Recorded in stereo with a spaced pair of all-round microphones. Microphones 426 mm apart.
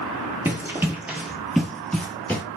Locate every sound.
0.5 s running footsteps: 5° right (ahead or behind), 1.1 m; by 2.4 s 5° left (ahead or behind), 1.2 m